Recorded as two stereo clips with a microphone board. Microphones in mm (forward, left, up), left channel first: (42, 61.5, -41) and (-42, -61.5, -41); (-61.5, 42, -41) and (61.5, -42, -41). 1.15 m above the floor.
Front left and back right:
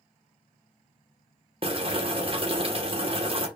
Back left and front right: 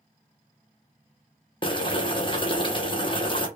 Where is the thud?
I don't hear a thud.